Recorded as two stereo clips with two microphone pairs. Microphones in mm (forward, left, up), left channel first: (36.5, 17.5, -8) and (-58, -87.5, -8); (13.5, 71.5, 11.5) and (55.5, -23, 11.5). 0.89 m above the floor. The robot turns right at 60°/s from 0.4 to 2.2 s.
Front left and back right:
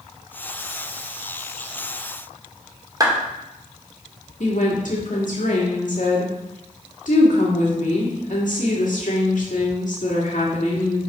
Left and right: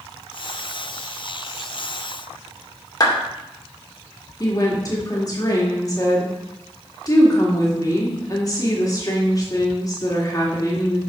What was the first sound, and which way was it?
A clap, 165° left.